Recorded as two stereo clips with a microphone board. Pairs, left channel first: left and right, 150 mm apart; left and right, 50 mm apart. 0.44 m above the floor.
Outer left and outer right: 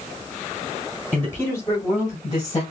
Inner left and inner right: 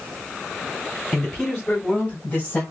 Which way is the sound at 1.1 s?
10° left (ahead or behind).